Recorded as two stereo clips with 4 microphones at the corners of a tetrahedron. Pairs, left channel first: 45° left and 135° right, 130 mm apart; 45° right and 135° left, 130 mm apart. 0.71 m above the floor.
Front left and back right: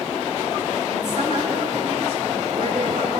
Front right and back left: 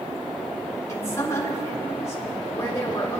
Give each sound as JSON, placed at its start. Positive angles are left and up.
{"t": 0.9, "sound": "a woman speaking", "azimuth_deg": -110, "distance_m": 3.0}